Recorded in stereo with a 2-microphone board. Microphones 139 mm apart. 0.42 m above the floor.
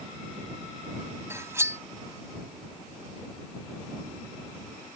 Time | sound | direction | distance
1.3 | cutlery clinking | 20° right (ahead or behind) | ?